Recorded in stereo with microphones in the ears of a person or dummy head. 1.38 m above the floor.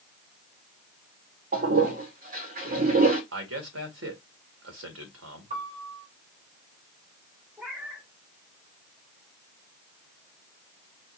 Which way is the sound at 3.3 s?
90° right.